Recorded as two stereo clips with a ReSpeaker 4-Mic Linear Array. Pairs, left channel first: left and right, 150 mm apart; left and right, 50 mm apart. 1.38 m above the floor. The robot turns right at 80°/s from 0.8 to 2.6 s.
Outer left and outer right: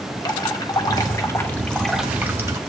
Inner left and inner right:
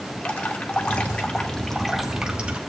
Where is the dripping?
25° left (ahead or behind), 1.0 m; by 2.6 s 20° right (ahead or behind), 1.0 m.